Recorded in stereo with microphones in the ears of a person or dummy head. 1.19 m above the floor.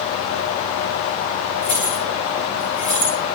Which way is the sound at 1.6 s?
45° left (ahead or behind).